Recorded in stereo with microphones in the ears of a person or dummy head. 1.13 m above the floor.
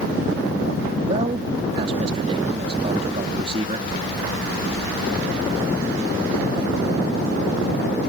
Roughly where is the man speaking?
Right.